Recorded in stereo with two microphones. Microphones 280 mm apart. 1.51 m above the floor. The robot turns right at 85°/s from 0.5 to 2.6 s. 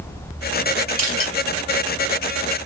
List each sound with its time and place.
1.0 s crushing: 55° left (ahead or behind), 1.8 m; by 1.3 s 50° left (ahead or behind), 1.8 m